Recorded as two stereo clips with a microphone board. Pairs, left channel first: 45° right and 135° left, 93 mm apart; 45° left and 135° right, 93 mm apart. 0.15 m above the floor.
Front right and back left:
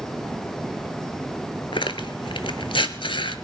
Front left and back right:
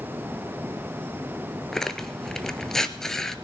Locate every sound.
1.7 s tearing paper: 40° right, 0.7 m